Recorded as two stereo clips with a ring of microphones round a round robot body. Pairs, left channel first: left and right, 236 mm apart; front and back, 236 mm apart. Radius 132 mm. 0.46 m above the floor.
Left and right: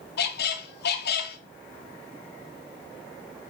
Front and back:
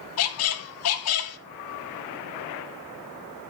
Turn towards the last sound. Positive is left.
turn(degrees=35)